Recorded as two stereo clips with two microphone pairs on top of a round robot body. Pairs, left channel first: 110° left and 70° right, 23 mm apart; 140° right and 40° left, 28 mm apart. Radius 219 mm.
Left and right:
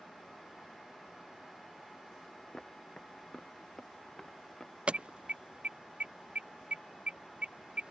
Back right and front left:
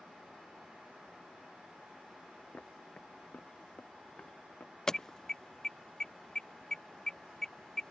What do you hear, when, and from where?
2.5 s footsteps: 175° left
4.9 s an alarm: 60° right